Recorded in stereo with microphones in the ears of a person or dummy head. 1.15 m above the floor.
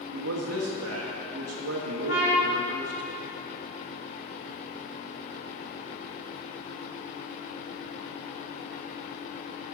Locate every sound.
0.1 s a man speaking: 85° right, 1.3 m
2.1 s a trumpet: 70° left (ahead or behind), 3 m